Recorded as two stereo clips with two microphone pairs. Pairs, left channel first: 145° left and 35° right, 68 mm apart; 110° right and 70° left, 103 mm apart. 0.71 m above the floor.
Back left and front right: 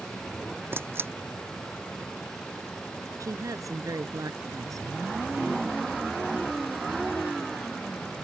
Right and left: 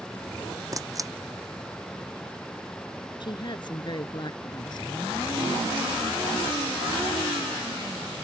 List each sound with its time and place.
0.7 s a camera shutter: 15° left
3.2 s a woman speaking: 65° right